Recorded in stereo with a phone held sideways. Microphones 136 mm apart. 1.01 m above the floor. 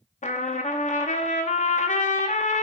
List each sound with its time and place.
0.2 s a trumpet: 60° left (ahead or behind), 0.6 m